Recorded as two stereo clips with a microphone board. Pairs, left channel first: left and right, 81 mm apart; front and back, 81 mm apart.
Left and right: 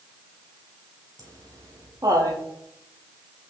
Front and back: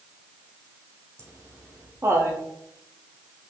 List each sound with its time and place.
1.2 s laughter: 125° right, 3.5 m